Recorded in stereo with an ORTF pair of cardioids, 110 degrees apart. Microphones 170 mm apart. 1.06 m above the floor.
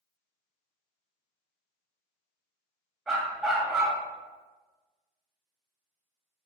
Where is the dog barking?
5° right, 2 m.